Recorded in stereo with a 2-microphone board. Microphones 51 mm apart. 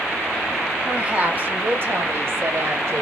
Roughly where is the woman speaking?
Centre.